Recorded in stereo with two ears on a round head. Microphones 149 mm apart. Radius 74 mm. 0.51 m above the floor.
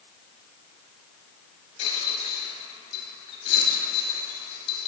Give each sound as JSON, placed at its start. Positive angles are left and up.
{"t": 1.8, "sound": "a rattle", "side_deg": 35, "distance_m": 3.5}